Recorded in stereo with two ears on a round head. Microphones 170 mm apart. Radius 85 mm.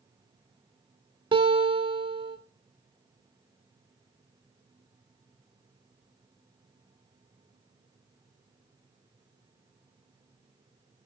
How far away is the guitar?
About 1.0 m.